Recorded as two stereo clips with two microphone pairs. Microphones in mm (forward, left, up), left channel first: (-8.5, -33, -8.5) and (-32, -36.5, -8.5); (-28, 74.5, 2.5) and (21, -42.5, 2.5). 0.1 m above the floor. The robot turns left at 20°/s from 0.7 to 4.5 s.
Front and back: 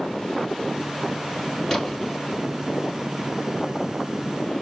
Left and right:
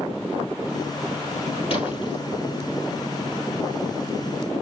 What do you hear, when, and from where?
1.7 s a splash: 90° left, 3.5 m; by 2.2 s 80° left, 3.5 m